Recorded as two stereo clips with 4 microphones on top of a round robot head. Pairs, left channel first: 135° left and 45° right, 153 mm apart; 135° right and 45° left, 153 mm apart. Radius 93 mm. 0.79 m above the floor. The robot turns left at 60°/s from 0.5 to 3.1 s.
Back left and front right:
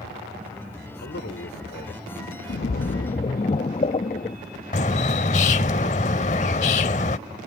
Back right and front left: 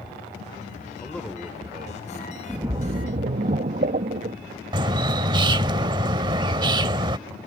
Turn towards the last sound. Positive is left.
turn(degrees=100)